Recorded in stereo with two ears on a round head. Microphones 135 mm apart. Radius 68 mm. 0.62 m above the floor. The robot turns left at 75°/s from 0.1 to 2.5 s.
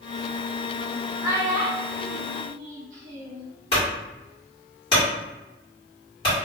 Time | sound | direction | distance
1.2 | a child speaking | 10° right (ahead or behind) | 0.7 m
3.7 | a clunk | 35° left (ahead or behind) | 1.6 m